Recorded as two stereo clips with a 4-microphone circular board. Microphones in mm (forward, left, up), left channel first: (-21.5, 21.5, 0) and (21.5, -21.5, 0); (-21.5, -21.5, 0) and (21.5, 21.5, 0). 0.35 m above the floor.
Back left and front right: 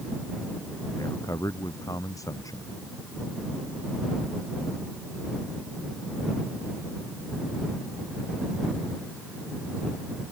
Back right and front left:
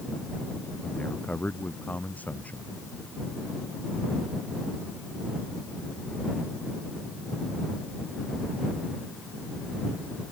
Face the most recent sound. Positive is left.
turn(degrees=160)